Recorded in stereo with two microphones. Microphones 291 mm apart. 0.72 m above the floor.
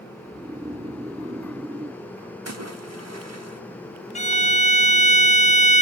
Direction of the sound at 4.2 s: 25° left (ahead or behind).